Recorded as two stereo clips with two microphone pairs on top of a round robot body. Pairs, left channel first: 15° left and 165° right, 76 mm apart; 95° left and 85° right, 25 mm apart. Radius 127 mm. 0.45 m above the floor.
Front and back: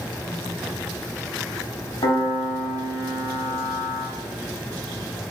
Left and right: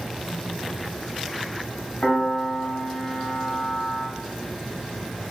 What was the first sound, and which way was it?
A piano, 40° left.